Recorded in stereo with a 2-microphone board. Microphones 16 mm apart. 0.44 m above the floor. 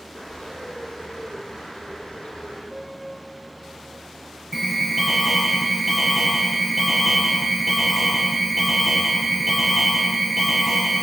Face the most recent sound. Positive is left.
turn(degrees=-5)  # may be behind; listen again after turning